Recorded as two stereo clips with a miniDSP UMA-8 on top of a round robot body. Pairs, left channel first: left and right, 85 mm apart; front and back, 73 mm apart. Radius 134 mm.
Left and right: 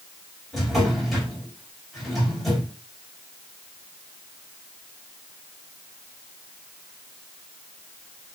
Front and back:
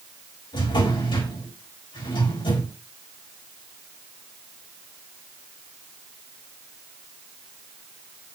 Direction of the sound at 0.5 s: Straight ahead.